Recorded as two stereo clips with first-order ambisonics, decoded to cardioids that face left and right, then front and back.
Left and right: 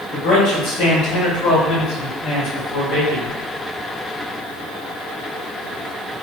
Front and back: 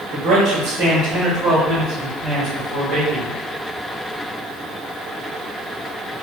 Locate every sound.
0.1 s a man speaking: 125° left, 1.2 m; by 3.4 s 110° left, 2.5 m